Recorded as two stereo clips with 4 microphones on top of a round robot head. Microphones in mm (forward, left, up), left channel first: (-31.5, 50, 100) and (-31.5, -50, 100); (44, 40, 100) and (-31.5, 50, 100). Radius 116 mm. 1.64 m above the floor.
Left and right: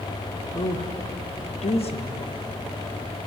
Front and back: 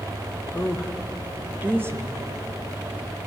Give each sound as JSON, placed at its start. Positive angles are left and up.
{"t": 0.5, "sound": "a woman speaking", "azimuth_deg": 70, "distance_m": 2.5}